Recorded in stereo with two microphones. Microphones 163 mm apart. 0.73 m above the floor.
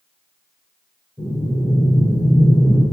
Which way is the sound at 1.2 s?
25° right (ahead or behind).